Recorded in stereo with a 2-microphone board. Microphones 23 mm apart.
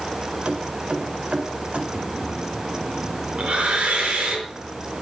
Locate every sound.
0.5 s keys jangling: 80° right, 2.5 m
1.9 s breathing: 60° right (ahead or behind), 5.5 m